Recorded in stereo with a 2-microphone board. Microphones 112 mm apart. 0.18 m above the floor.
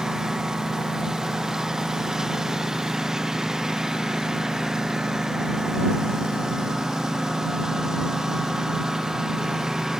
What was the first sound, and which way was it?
A lawn mower, 5° right (ahead or behind).